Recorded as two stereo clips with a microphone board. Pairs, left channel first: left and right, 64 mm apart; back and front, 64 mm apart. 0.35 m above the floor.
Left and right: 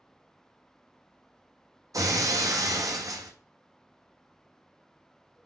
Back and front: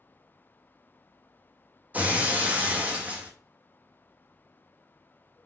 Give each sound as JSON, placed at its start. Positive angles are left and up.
{"t": 1.9, "sound": "breaking glass", "azimuth_deg": -65, "distance_m": 0.9}